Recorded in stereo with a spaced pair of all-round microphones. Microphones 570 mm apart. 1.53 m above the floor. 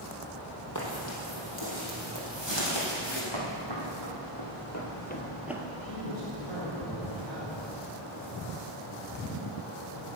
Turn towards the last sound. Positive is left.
turn(degrees=50)  # may be behind; listen again after turning